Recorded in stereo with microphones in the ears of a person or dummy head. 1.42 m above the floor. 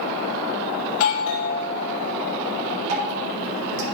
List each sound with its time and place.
0.9 s a doorbell: 75° left (ahead or behind), 1.1 m
2.9 s dripping: 85° right, 4 m